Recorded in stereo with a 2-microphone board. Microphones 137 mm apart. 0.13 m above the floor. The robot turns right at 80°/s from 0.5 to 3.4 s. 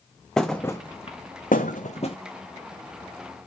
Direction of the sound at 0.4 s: 5° left (ahead or behind).